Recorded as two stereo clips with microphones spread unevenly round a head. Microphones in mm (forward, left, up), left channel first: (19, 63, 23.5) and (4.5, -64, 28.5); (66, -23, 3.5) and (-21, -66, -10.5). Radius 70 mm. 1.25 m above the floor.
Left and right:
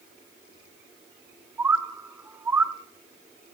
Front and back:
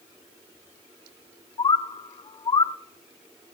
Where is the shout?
No shout in this recording.